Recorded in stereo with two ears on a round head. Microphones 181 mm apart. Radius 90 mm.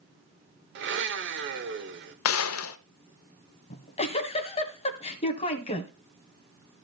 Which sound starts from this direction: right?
A blender, at 0.8 s.